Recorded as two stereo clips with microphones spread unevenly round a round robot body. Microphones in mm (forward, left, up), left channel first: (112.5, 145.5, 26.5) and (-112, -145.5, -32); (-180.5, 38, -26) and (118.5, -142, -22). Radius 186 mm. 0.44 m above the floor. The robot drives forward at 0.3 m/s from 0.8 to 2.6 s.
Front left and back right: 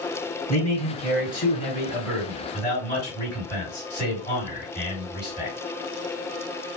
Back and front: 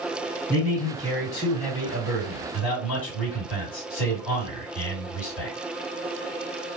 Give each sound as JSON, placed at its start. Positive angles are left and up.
{"t": 0.5, "sound": "a man speaking", "azimuth_deg": 125, "distance_m": 1.8}